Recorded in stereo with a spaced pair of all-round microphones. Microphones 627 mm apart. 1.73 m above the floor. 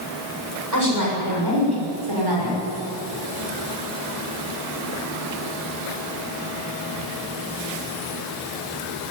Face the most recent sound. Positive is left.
turn(degrees=-45)  # may be behind; listen again after turning